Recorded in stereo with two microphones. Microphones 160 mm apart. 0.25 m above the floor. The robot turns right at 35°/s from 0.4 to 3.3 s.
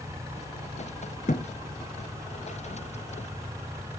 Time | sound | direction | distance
1.3 | a thud | 55° left (ahead or behind) | 1.1 m